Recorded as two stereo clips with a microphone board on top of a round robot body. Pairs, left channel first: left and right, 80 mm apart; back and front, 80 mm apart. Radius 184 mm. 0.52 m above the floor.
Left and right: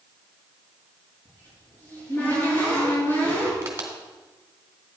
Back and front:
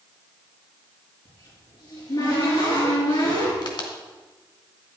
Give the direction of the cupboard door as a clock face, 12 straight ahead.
7 o'clock.